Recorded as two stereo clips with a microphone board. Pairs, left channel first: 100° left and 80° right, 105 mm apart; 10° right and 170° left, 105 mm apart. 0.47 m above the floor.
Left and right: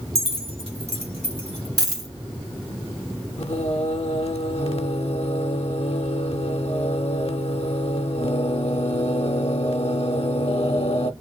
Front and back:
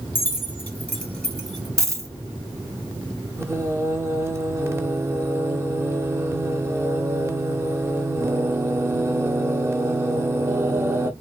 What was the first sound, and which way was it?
Keys jangling, 80° right.